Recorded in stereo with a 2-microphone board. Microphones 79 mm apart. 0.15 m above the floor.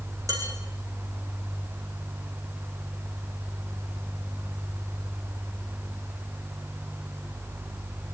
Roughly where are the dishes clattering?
Right.